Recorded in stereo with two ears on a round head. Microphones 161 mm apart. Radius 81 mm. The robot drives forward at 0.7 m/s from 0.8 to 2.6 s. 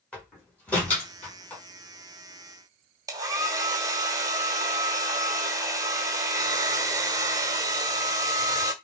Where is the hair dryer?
20° right (ahead or behind), 1.5 m.